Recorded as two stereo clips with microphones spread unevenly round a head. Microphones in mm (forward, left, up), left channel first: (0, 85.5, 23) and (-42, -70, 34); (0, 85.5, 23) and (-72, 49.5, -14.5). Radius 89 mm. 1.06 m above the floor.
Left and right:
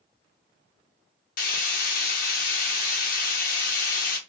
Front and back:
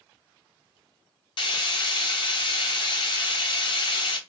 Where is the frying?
30° left, 0.8 m.